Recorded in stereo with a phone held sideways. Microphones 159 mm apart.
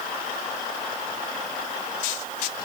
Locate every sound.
Only background noise.